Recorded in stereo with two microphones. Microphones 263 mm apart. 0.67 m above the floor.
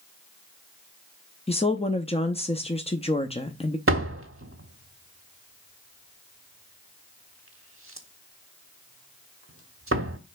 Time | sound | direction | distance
1.5 | a woman speaking | 20° left (ahead or behind) | 0.7 m
3.9 | a door slam | 55° right (ahead or behind) | 1.2 m